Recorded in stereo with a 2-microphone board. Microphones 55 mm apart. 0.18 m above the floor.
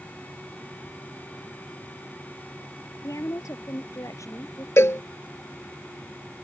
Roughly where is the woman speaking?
Left.